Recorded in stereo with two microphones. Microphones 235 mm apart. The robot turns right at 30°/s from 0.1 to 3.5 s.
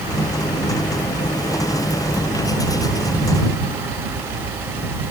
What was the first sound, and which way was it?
Only background noise.